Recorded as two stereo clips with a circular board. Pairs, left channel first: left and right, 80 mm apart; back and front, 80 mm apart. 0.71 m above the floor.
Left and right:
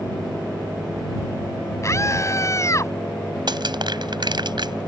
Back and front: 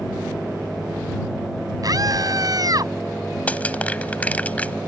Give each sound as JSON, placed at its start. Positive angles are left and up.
{"t": 1.8, "sound": "a scream", "azimuth_deg": 40}
{"t": 3.5, "sound": "crushing", "azimuth_deg": -110}